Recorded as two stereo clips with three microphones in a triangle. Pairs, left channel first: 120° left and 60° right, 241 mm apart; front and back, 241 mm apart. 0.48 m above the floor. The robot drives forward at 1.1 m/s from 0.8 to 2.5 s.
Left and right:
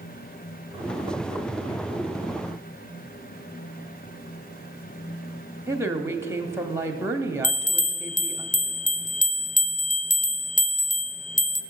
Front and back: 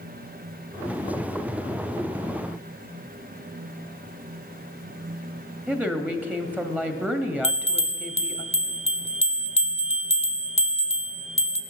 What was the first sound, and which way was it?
A woman speaking, 110° right.